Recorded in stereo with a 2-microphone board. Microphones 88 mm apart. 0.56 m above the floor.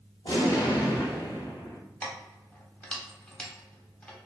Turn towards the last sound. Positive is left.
turn(degrees=15)  # may be behind; listen again after turning